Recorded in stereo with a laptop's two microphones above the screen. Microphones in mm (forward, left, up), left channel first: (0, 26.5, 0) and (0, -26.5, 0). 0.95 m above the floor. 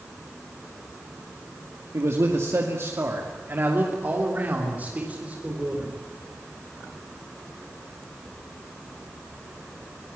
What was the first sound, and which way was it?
A man speaking, 65° right (ahead or behind).